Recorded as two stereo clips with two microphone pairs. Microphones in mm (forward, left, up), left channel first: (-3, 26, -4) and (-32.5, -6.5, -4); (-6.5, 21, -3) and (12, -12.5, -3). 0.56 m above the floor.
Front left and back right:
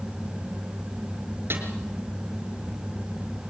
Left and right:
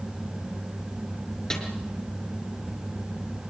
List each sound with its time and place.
1.5 s a snare drum: 165° right, 5 m